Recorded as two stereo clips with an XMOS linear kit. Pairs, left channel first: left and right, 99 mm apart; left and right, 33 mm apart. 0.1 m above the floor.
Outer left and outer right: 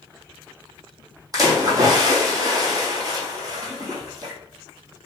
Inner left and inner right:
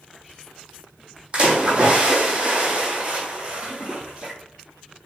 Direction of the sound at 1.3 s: 35° right (ahead or behind).